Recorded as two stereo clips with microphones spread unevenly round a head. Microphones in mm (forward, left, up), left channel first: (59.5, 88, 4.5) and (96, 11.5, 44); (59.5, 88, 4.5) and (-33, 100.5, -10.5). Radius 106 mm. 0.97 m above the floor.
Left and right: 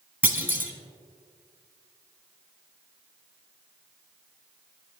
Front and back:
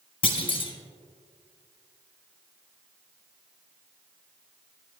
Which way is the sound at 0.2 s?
10° right.